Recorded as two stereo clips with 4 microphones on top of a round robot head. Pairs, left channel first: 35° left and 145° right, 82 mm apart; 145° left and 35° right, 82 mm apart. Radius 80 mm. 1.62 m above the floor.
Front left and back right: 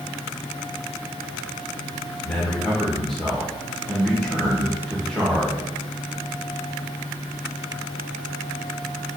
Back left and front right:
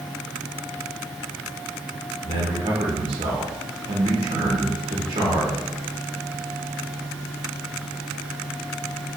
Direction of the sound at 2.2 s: 45° right.